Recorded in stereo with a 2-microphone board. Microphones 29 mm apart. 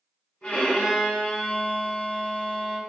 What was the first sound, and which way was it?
A violin, 50° left (ahead or behind).